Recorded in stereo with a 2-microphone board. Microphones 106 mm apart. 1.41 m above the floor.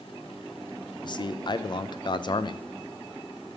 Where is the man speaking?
45° left (ahead or behind), 0.8 m.